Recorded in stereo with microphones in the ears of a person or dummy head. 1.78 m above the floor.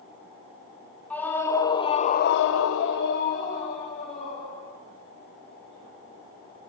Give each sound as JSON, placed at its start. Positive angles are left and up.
{"t": 1.1, "sound": "a scream", "side_deg": 10, "distance_m": 2.5}